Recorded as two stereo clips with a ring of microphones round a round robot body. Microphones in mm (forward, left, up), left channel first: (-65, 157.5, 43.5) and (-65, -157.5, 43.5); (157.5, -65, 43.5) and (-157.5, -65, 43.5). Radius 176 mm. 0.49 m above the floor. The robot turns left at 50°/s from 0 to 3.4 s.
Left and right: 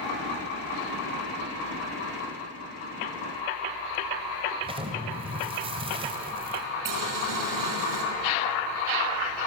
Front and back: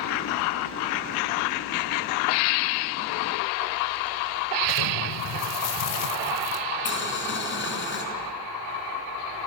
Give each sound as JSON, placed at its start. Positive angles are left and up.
{"t": 4.6, "sound": "an explosion", "azimuth_deg": -15, "distance_m": 1.9}
{"t": 6.8, "sound": "boiling", "azimuth_deg": -55, "distance_m": 4.5}